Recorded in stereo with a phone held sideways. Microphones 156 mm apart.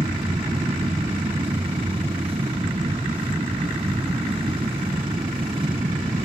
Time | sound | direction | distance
0.0 | a machine running | 35° right (ahead or behind) | ?